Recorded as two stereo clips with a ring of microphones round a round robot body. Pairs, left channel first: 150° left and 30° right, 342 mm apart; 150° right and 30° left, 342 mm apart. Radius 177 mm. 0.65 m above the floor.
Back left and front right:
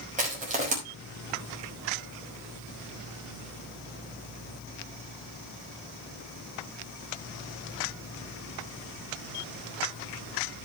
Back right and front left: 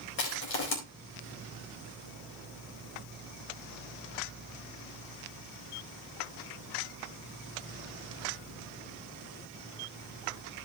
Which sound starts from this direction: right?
Crushing, at 0.2 s.